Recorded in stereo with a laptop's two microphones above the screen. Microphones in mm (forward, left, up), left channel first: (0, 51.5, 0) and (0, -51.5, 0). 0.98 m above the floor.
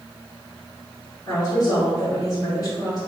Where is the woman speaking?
40° left (ahead or behind), 1.9 m.